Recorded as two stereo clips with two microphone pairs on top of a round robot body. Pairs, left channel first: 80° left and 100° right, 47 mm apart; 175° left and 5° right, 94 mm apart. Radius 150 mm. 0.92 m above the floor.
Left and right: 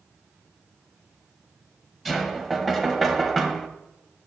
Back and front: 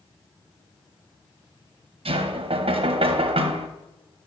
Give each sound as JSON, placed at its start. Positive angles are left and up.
{"t": 2.0, "sound": "knocking", "azimuth_deg": -10, "distance_m": 1.0}